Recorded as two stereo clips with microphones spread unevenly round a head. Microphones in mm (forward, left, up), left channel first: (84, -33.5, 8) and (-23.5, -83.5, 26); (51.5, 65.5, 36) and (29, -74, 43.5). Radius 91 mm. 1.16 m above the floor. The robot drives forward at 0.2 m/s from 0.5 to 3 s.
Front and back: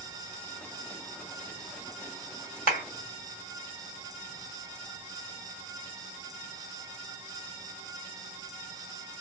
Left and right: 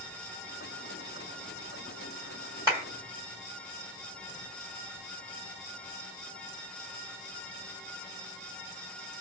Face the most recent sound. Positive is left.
turn(degrees=-170)